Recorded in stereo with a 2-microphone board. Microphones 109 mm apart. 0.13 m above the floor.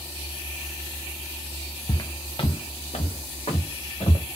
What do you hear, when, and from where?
1.9 s footsteps: 35° left (ahead or behind), 0.5 m; by 4.2 s 75° left (ahead or behind), 1.7 m